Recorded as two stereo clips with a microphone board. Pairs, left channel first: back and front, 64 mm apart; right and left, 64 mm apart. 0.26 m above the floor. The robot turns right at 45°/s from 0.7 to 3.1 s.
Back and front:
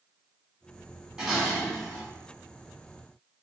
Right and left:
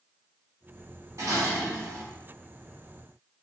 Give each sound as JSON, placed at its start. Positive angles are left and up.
{"t": 1.2, "sound": "dishes clattering", "azimuth_deg": 80, "distance_m": 1.6}